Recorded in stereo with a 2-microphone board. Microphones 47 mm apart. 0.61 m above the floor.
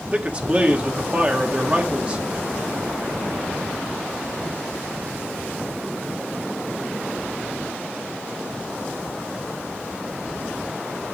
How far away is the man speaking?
About 1.5 m.